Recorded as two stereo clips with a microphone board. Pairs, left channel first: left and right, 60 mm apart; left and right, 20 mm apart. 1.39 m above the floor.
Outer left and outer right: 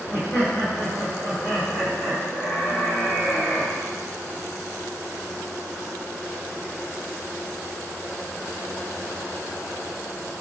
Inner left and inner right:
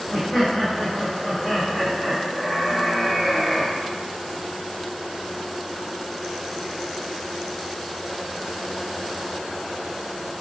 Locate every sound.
0.1 s laughter: 50° left (ahead or behind), 1.6 m